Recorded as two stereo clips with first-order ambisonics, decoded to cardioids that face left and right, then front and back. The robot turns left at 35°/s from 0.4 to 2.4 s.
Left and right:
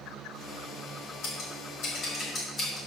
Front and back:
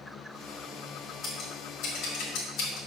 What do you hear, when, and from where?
1.2 s scissors: 65° left, 2.5 m; by 2.8 s 25° left, 2.5 m